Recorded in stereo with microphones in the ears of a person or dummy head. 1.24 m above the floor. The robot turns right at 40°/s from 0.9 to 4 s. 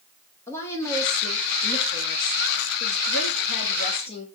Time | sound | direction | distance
0.5 | a woman speaking | 20° left | 1.2 m